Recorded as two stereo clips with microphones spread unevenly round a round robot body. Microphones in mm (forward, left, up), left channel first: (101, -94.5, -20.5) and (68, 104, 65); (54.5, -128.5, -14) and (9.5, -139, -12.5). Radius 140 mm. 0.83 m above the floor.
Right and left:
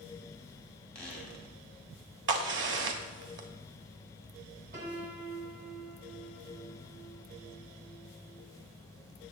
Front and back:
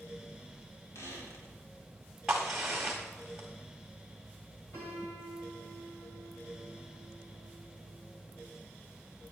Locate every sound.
0.9 s a squeak: 5° left, 3.5 m
2.3 s a crack: 110° left, 1.1 m
4.7 s a piano: 65° left, 3 m